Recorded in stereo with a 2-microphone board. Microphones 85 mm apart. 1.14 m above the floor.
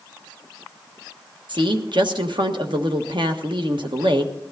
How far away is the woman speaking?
About 1.4 m.